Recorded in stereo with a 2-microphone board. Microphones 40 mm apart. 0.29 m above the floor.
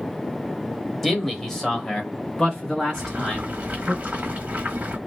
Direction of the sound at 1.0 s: 5° left (ahead or behind).